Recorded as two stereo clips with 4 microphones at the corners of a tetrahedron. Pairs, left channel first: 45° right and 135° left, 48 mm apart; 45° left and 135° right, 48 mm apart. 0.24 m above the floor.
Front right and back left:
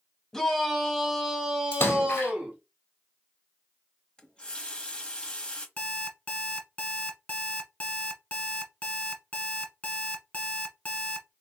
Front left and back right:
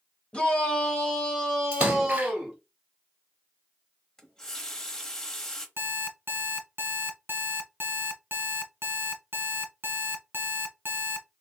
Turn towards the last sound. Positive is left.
turn(degrees=-100)